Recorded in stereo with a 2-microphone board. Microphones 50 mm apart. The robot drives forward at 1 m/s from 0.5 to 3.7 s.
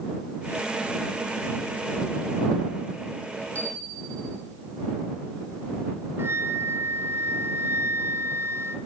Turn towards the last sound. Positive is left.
turn(degrees=-55)  # may be behind; listen again after turning